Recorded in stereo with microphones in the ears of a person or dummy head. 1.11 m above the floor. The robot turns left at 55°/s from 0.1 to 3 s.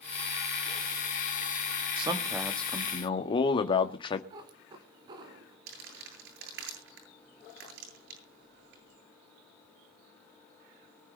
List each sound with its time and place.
2.0 s a man speaking: 150° right, 1.7 m; by 4.2 s 150° left, 1.7 m
4.3 s a cat meowing: 25° right (ahead or behind), 1.7 m
5.7 s crumpling: 80° right, 9.5 m